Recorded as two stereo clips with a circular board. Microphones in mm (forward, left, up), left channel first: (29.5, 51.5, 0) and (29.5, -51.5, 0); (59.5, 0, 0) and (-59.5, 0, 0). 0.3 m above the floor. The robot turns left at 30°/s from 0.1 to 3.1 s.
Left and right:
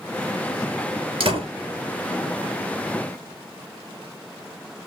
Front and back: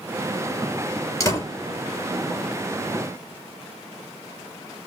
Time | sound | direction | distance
1.2 | a door slam | 60° right | 3.5 m